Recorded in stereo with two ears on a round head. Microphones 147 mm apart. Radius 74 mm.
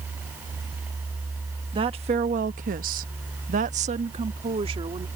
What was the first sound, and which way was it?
A woman speaking, 30° right (ahead or behind).